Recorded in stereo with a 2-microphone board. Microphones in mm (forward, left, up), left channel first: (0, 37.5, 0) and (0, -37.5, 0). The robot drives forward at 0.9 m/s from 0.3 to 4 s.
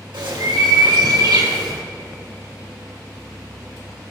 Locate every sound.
0.1 s a bird: 85° right, 2 m; by 1.8 s 60° right (ahead or behind), 2.5 m